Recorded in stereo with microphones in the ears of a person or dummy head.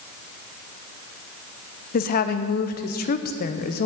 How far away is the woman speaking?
About 0.7 m.